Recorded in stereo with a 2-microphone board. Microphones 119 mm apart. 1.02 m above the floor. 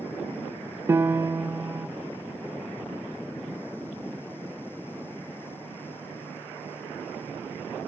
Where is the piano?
20° right (ahead or behind), 0.8 m.